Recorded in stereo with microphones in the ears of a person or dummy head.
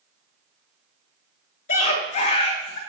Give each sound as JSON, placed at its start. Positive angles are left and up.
{"t": 1.7, "sound": "a scream", "side_deg": 60, "distance_m": 3.0}